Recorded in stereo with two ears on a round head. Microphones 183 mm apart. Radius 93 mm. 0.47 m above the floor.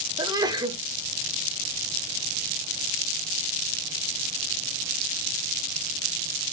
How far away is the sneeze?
About 0.9 m.